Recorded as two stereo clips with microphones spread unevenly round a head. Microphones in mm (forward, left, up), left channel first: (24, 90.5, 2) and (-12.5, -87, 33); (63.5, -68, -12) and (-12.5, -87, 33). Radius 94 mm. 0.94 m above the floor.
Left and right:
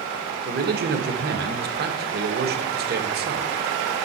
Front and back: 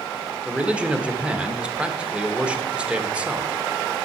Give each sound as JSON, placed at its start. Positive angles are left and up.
{"t": 0.5, "sound": "a man speaking", "azimuth_deg": -70, "distance_m": 1.3}